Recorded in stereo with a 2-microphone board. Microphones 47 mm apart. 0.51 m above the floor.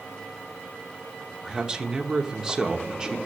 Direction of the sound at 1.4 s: 15° right (ahead or behind).